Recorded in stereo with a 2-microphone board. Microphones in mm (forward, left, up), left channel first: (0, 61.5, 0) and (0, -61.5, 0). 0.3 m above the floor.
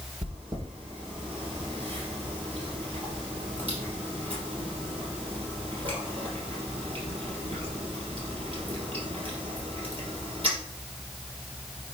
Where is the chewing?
45° right (ahead or behind), 3.5 m.